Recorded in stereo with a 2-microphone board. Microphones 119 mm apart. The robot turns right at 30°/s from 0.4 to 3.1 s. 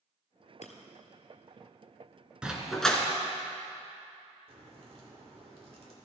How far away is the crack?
About 2 m.